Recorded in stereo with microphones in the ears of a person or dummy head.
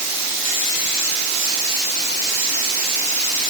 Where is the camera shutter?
I don't hear a camera shutter.